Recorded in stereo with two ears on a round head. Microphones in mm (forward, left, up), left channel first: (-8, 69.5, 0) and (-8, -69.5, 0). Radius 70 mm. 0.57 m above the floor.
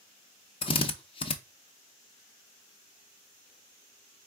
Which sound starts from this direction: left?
A drill, at 0.6 s.